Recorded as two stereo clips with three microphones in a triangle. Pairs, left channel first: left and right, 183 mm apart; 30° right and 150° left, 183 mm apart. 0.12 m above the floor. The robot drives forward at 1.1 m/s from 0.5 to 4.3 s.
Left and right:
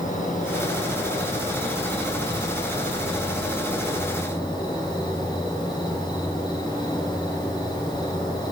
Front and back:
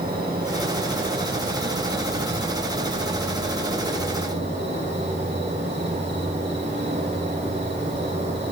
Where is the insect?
125° left, 4.5 m; by 8.5 s 155° left, 7.5 m.